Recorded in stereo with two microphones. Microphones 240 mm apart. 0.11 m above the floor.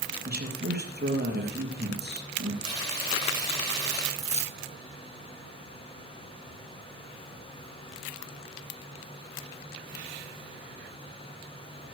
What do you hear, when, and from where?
0.2 s a man speaking: 40° right (ahead or behind), 3 m
2.6 s frying: 15° left (ahead or behind), 8 m
4.2 s keys jangling: 25° left (ahead or behind), 1.1 m